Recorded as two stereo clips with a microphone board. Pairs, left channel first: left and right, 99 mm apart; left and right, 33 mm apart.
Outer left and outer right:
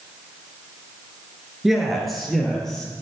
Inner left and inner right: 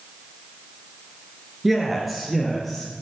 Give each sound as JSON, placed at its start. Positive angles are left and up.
{"t": 1.6, "sound": "a man speaking", "side_deg": -5, "distance_m": 2.5}